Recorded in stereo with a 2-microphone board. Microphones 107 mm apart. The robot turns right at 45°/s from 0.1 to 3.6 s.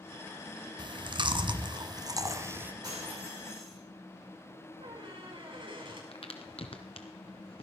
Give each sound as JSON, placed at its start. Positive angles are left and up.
{"t": 0.8, "sound": "chewing", "azimuth_deg": -110, "distance_m": 1.2}
{"t": 2.8, "sound": "breaking glass", "azimuth_deg": -35, "distance_m": 8.5}
{"t": 4.8, "sound": "a squeak", "side_deg": -50, "distance_m": 5.5}
{"t": 6.1, "sound": "a crack", "side_deg": 60, "distance_m": 1.7}